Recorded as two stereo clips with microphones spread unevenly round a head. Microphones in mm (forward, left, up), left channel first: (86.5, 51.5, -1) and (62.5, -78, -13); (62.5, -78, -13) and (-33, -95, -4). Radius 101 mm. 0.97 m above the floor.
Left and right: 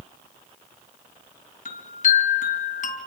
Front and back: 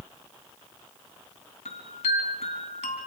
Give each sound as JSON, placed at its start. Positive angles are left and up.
{"t": 1.6, "sound": "a chime", "azimuth_deg": 60, "distance_m": 3.5}